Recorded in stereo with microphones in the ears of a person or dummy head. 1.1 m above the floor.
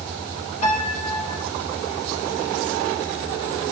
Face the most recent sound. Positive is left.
turn(degrees=45)  # may be behind; listen again after turning